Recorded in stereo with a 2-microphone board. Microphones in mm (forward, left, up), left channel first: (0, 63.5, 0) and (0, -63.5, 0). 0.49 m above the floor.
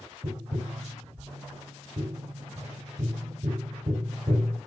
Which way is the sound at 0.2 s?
50° right (ahead or behind).